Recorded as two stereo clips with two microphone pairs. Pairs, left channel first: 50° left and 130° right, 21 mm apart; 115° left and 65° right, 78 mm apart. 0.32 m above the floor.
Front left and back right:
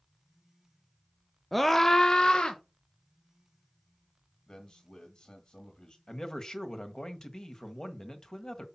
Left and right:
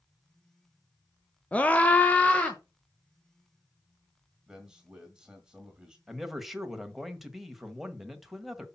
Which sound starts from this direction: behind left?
A scream, at 1.5 s.